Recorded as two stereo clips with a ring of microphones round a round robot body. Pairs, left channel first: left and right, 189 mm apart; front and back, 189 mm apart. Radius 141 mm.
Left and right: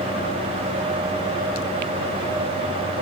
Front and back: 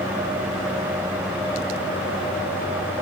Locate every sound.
Only background noise.